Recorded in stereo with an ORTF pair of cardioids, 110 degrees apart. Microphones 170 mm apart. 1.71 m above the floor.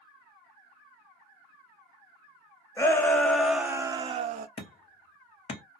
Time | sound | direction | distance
2.8 | a shout | 15° left | 1.1 m
4.6 | hammering | 40° left | 1.1 m